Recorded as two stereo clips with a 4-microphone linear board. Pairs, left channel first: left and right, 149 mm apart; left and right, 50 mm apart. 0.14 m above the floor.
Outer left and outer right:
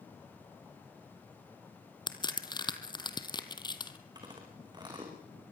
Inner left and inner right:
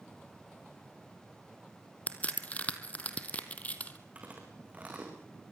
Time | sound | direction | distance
2.1 | a crack | 30° left (ahead or behind) | 1.5 m
4.2 | chewing | 30° right (ahead or behind) | 5.5 m